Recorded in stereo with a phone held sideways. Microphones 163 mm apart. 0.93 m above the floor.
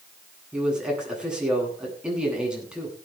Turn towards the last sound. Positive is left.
turn(degrees=-5)  # may be behind; listen again after turning